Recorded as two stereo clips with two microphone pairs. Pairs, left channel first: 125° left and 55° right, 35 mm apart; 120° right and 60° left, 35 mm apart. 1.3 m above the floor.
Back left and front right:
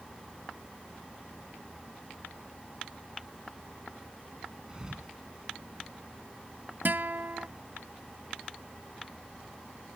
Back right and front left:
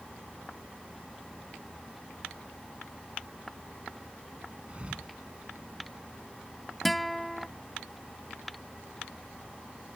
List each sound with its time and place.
4.7 s a thud: 10° left
6.8 s a guitar: 30° right